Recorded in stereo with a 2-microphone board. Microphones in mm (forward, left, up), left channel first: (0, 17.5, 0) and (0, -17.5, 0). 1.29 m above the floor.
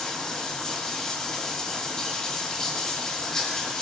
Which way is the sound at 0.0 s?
15° left (ahead or behind).